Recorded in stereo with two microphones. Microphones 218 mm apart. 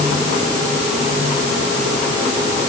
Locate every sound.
Only background noise.